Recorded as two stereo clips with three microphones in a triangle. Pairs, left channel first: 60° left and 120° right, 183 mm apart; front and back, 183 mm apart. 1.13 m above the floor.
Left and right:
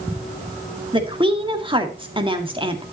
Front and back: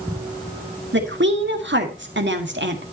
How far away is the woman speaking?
About 1.9 m.